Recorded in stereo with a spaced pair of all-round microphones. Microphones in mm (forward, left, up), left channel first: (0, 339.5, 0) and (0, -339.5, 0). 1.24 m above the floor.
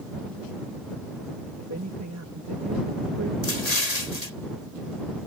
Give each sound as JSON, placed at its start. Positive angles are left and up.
{"t": 1.6, "sound": "a man speaking", "side_deg": -20}
{"t": 3.4, "sound": "an explosion", "side_deg": 65}